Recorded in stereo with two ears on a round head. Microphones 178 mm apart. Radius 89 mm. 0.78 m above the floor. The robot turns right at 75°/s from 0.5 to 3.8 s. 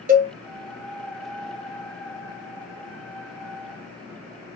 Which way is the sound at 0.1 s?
40° right (ahead or behind).